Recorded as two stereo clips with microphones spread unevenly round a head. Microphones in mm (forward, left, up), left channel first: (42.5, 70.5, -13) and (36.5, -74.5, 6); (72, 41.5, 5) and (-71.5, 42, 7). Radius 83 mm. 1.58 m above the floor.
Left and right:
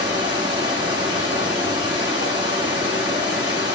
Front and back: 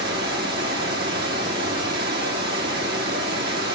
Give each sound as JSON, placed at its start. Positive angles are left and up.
{"t": 0.0, "sound": "running water", "azimuth_deg": -155, "distance_m": 2.0}